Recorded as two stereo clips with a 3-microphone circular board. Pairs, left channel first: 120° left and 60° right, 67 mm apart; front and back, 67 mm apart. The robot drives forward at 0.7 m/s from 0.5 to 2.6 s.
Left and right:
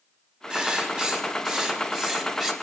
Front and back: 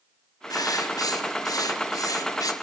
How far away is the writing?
About 5 m.